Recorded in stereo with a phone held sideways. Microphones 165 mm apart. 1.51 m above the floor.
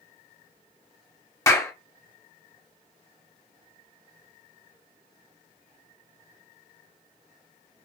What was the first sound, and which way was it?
A clap, 20° left (ahead or behind).